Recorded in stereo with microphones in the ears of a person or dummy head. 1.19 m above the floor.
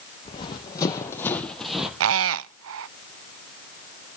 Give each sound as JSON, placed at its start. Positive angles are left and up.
{"t": 0.2, "sound": "running footsteps", "side_deg": 30, "distance_m": 3.5}
{"t": 2.0, "sound": "a squeak", "side_deg": -75, "distance_m": 0.5}